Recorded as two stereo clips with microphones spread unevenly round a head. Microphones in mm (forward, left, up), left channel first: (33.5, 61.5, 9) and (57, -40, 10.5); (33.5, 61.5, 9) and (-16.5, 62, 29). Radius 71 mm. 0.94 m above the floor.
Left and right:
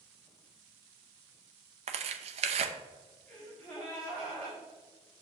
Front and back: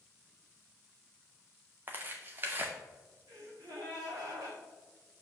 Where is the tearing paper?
105° right, 0.5 m.